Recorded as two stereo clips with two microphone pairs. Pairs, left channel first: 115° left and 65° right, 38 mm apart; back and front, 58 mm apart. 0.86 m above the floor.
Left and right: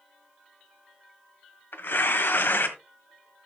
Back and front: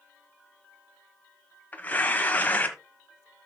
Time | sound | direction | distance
1.7 | tearing paper | 120° left | 1.5 m